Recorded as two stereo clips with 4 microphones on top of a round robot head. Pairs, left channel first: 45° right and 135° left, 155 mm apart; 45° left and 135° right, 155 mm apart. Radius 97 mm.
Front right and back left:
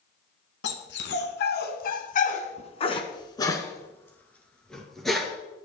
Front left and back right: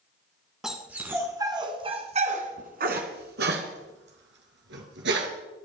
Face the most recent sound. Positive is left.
turn(degrees=-135)